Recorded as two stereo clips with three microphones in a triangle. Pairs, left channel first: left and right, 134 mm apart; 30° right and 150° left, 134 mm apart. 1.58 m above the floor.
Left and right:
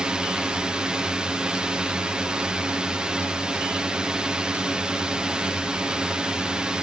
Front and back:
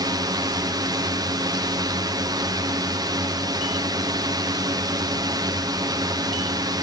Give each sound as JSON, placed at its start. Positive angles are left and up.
{"t": 0.0, "sound": "a drone", "azimuth_deg": -170}